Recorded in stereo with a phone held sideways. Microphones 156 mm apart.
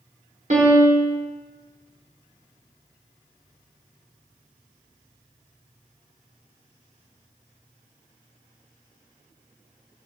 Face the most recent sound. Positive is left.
turn(degrees=-55)  # may be behind; listen again after turning